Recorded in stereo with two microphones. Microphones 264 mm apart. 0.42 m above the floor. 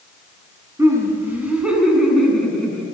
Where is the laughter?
10° right (ahead or behind), 3 m; by 2.9 s 5° left (ahead or behind), 3.5 m.